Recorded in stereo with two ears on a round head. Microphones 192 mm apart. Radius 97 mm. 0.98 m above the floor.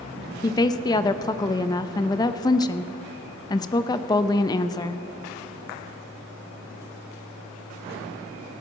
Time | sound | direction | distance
0.4 | a woman speaking | 20° left (ahead or behind) | 0.5 m